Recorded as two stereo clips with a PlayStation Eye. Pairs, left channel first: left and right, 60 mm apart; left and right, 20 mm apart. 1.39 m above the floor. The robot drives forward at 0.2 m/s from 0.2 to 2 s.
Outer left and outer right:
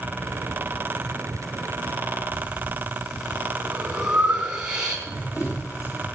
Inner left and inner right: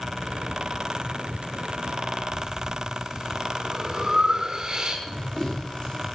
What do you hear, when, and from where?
2.3 s breathing: 15° right (ahead or behind), 3.5 m
5.1 s running footsteps: 60° left (ahead or behind), 6.5 m